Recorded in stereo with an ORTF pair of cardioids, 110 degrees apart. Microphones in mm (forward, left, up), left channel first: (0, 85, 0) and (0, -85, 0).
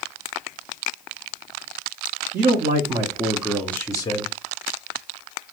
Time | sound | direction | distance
2.3 | a man speaking | 50° right | 0.9 m